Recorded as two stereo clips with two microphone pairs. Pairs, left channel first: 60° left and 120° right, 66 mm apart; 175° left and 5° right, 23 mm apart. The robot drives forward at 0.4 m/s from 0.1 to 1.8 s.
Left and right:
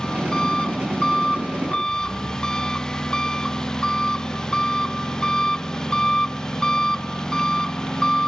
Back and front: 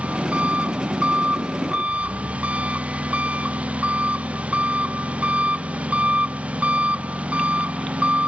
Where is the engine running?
20° right.